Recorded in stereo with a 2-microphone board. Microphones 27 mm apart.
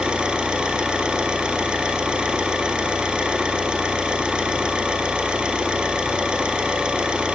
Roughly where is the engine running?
Right.